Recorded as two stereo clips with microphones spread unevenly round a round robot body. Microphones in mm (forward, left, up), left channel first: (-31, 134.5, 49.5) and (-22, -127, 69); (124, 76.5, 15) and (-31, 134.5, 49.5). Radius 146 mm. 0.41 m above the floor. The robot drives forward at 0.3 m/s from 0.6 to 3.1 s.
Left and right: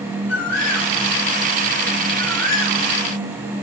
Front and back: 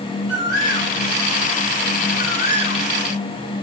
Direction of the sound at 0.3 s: 85° left.